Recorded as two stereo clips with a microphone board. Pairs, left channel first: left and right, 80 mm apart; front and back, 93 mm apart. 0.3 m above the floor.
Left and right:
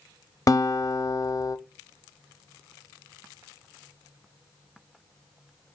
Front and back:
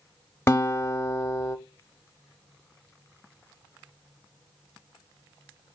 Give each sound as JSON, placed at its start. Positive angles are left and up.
{"t": 0.5, "sound": "a guitar", "azimuth_deg": 55, "distance_m": 0.5}